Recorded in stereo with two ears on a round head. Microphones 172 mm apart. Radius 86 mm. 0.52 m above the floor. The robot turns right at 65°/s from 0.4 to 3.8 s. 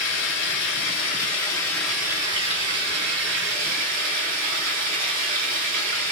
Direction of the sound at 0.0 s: 80° left.